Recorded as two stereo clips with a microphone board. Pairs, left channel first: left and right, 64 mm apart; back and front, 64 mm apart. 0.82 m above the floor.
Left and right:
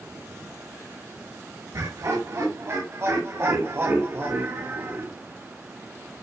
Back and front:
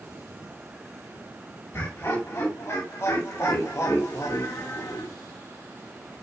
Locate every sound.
1.7 s laughter: 130° right, 6.5 m; by 5.1 s 150° right, 2 m